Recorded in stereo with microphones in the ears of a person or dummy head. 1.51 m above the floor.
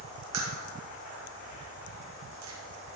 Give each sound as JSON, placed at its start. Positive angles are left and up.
{"t": 0.3, "sound": "a crack", "side_deg": -80, "distance_m": 2.5}